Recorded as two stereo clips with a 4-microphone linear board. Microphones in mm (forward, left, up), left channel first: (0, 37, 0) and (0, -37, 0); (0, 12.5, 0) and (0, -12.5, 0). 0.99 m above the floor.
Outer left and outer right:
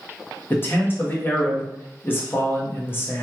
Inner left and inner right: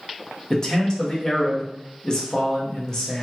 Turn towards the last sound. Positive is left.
turn(degrees=30)  # may be behind; listen again after turning